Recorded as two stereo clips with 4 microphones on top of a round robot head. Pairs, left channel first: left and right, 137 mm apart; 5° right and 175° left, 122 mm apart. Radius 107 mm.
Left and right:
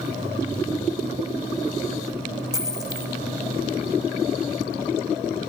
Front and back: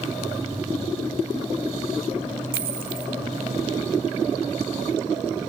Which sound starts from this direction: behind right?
A dropped coin, at 2.5 s.